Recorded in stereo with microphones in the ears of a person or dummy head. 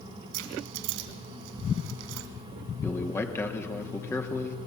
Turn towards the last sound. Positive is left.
turn(degrees=10)  # may be behind; listen again after turning